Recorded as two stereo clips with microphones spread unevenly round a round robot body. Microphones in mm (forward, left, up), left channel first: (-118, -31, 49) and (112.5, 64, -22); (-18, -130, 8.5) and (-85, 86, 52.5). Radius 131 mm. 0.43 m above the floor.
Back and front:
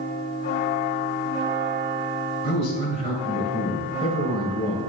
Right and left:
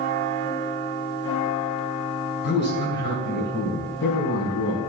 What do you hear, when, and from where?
2.4 s a man speaking: 80° right, 2.5 m